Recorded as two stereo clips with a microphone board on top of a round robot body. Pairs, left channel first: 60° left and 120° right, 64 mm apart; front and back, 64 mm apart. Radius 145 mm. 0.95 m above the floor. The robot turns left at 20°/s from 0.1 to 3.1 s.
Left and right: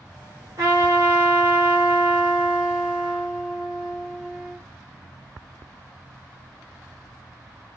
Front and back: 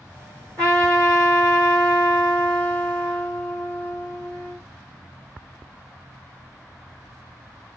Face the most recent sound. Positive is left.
turn(degrees=165)